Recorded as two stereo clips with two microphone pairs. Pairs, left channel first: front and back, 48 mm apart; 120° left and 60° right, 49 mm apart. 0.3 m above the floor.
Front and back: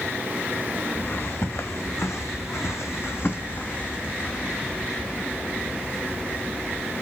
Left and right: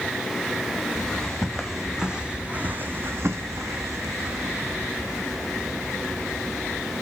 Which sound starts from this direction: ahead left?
Footsteps, at 0.9 s.